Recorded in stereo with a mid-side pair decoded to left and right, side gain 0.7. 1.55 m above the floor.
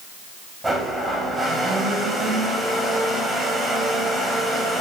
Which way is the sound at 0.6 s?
10° right.